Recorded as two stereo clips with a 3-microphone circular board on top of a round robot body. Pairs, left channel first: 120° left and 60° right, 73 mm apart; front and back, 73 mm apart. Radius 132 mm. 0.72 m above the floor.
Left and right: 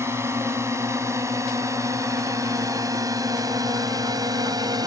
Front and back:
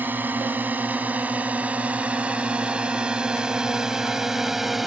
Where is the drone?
115° right; by 4.9 s 95° right.